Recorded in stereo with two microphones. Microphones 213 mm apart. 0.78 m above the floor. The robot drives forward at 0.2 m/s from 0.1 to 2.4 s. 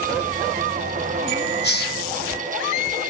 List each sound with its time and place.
1.6 s a hiss: 50° left (ahead or behind), 0.6 m; by 2.0 s 45° left (ahead or behind), 0.6 m